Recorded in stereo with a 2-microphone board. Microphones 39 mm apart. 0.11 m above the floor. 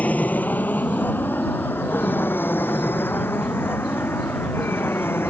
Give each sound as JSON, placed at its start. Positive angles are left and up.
{"t": 0.0, "sound": "an aircraft", "side_deg": 40}